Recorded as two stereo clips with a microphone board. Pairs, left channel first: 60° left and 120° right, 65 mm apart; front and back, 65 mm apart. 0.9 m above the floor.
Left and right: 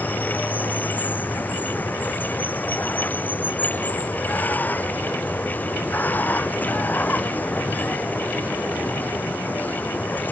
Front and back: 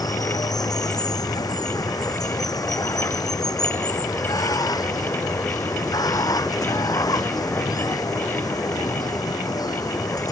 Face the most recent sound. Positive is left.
turn(degrees=-5)